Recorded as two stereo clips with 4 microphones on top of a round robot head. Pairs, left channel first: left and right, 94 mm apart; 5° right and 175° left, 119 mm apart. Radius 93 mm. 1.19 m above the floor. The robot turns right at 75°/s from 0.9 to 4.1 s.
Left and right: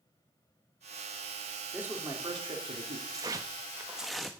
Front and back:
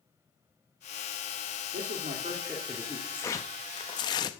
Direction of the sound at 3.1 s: 75° right.